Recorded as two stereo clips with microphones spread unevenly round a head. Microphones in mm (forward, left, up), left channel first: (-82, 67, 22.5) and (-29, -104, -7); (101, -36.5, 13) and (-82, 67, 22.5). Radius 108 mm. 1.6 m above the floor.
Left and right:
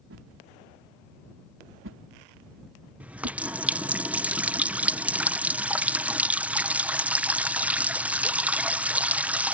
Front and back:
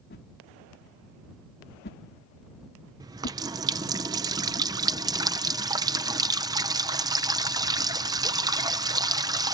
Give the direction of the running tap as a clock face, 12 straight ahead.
6 o'clock.